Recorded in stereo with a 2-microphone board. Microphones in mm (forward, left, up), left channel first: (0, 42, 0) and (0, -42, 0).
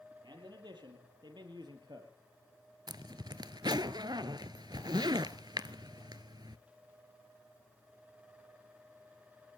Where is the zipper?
60° right (ahead or behind), 0.8 m.